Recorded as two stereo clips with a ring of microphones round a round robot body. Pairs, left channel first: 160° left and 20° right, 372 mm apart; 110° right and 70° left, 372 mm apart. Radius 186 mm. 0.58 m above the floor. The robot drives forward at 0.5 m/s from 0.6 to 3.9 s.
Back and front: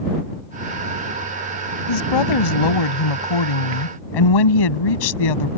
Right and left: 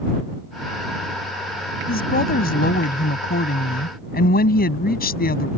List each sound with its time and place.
1.9 s a woman speaking: straight behind